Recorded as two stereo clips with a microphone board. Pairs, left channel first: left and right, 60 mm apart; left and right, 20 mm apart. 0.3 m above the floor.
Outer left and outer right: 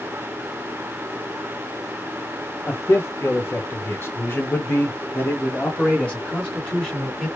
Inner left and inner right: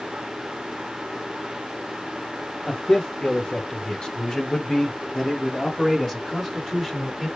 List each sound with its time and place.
2.7 s a man speaking: 45° left (ahead or behind), 1.5 m; by 7.3 s 10° left (ahead or behind), 2.5 m